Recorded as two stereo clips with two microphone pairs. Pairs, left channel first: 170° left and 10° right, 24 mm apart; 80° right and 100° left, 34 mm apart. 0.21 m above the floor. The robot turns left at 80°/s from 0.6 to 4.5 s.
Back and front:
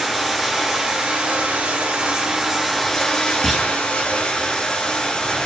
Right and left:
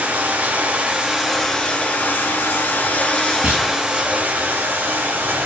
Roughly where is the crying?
I don't hear crying.